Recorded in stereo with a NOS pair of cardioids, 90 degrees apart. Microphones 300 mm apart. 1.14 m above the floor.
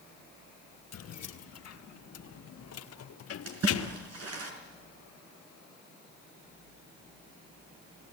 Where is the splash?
55° right, 5.5 m.